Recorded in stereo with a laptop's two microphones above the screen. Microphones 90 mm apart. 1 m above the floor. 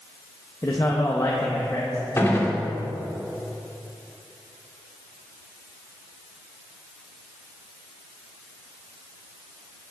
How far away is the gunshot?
About 1.8 m.